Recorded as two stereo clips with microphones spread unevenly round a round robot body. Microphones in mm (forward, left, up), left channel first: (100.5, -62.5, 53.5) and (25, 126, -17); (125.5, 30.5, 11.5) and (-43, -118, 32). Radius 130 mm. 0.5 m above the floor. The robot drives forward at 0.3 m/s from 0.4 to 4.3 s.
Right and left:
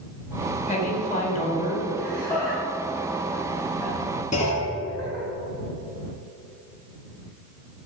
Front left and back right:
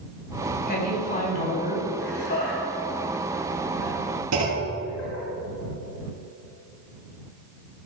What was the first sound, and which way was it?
A woman speaking, 5° right.